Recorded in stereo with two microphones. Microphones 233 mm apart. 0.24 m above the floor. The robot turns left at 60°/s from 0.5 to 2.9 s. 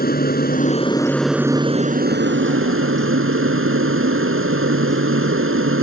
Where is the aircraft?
45° left; by 5.8 s 100° right.